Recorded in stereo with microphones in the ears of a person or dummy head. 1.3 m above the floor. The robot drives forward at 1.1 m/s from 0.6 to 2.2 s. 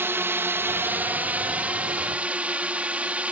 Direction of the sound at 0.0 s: 10° right (ahead or behind).